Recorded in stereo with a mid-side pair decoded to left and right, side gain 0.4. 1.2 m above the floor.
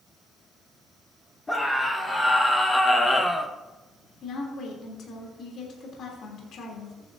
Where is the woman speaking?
70° left, 3.5 m.